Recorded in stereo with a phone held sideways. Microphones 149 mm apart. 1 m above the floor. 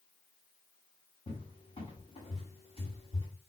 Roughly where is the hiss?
I don't hear a hiss.